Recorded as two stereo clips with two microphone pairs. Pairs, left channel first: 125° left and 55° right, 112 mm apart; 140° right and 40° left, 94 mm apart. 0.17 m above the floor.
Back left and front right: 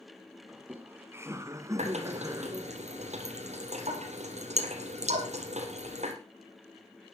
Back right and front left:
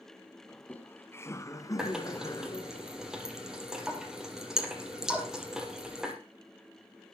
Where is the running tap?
45° right, 4 m.